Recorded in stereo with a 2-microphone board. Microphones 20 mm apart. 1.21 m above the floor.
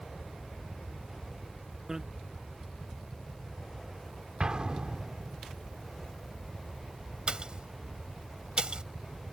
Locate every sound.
1.9 s a bicycle bell: 25° right (ahead or behind)
4.4 s an explosion: 45° right (ahead or behind)
7.3 s a pop: 45° right (ahead or behind)